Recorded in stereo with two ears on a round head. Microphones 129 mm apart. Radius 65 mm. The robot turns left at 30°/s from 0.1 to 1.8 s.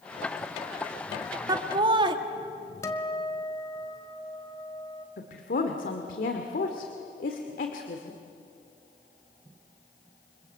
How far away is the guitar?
About 1.7 m.